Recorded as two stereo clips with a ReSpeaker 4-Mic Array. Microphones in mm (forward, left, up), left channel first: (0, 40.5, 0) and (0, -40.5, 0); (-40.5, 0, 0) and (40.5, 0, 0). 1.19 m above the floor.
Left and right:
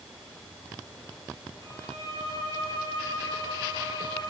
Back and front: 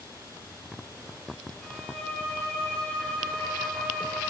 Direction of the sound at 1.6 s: 100° right.